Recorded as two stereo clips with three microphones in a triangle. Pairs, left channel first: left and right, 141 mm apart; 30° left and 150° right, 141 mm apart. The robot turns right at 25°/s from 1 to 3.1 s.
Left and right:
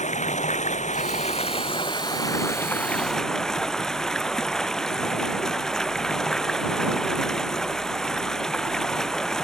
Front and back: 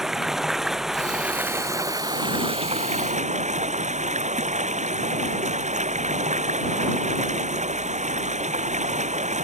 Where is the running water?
125° left; by 9.4 s 175° left.